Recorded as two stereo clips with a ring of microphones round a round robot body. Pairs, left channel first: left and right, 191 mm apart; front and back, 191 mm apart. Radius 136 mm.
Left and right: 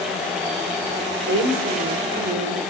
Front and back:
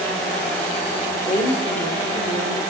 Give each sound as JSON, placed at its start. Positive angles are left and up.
{"t": 1.3, "sound": "a woman speaking", "azimuth_deg": -70, "distance_m": 2.5}